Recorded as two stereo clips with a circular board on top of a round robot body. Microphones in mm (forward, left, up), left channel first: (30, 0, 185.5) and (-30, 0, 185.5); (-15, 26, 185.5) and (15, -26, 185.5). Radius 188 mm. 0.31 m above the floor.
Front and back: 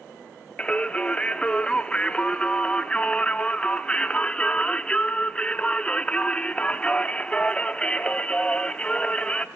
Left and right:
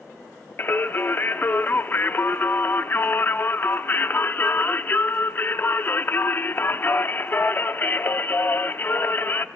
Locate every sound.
0.6 s singing: 70° left, 0.6 m